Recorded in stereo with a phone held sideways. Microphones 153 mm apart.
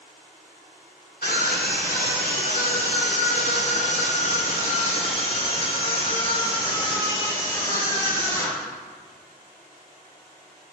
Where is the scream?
85° left, 3.5 m; by 8.7 s 20° left (ahead or behind), 5 m.